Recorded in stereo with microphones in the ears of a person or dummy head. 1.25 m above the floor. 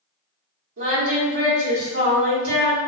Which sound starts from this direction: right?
Singing, at 0.8 s.